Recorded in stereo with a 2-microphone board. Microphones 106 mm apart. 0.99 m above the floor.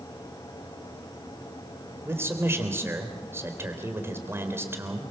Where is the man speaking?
20° right (ahead or behind), 3.5 m.